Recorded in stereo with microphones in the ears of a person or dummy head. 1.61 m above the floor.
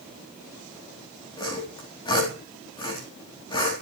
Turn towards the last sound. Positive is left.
turn(degrees=20)  # may be behind; listen again after turning